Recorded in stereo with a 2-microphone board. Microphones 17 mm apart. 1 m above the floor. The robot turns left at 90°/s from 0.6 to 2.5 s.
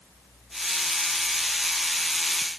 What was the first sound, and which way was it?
Only background noise.